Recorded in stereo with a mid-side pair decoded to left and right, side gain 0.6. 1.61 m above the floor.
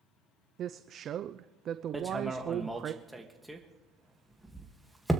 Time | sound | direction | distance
0.6 | a woman speaking | 45° right | 0.5 m
1.9 | hammering | 5° right | 1.9 m